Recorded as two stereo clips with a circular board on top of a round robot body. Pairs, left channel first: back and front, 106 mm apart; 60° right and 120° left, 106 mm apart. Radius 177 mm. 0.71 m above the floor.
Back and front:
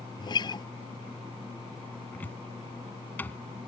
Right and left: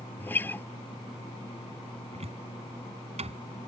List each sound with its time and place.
0.2 s a guitar: 130° right
2.1 s a cupboard door: 105° left